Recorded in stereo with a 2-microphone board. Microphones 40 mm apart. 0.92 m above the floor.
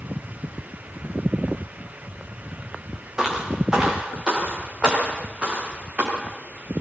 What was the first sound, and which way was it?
Footsteps, 15° right (ahead or behind).